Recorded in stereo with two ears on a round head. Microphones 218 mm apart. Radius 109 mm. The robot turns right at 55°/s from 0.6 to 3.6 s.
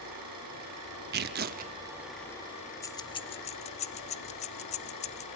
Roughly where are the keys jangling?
Centre.